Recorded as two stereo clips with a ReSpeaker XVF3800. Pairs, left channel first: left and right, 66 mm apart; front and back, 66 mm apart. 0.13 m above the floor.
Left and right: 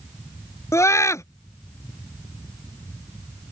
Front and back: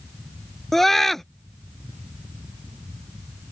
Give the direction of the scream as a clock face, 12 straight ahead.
9 o'clock.